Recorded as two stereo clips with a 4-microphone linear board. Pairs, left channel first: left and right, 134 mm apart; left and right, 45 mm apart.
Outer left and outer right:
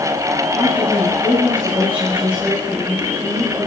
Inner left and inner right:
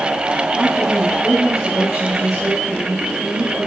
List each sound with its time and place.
0.6 s a woman speaking: 10° right (ahead or behind), 6.5 m